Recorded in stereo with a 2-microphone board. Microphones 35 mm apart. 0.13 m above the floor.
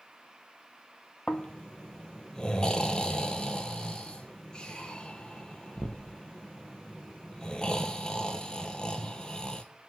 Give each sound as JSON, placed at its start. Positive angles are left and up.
{"t": 1.3, "sound": "snoring", "side_deg": 20, "distance_m": 0.5}